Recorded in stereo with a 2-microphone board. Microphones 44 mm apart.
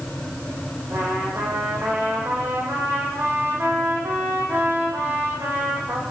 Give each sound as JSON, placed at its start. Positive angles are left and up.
{"t": 0.9, "sound": "a trumpet", "side_deg": -60, "distance_m": 8.0}